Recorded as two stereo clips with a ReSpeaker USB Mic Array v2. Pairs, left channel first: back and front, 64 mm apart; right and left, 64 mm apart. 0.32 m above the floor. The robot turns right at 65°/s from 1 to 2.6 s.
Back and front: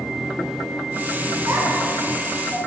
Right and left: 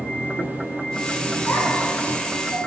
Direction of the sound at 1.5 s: 40° right.